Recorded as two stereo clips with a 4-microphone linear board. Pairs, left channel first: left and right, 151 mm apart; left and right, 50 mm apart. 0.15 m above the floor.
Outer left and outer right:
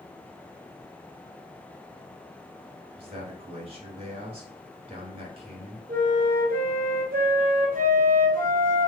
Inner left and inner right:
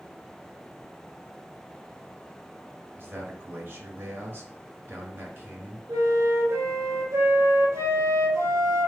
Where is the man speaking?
35° right (ahead or behind), 1.8 m.